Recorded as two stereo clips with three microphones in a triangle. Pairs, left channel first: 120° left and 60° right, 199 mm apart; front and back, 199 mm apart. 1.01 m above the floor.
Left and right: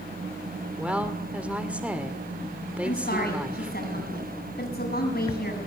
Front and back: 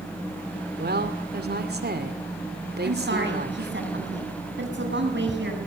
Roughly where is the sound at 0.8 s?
Behind right.